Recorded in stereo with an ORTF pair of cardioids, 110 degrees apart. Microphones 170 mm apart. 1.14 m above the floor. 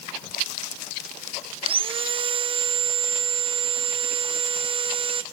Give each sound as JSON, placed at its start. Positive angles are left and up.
{"t": 1.6, "sound": "sawing", "azimuth_deg": -30, "distance_m": 1.0}